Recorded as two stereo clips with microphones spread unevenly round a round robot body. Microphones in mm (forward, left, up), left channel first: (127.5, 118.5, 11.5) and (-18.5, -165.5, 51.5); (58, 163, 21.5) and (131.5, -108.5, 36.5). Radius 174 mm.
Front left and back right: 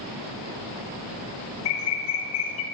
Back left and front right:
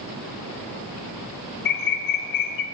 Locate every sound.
1.6 s a bird: 110° left, 0.6 m